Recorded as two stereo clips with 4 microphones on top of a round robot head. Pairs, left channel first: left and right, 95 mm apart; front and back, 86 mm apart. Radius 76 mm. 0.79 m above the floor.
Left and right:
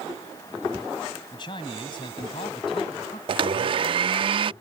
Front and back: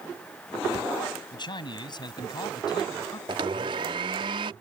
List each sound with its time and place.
1.3 s a man speaking: 35° left; by 3.2 s 40° left
3.3 s a blender: 130° right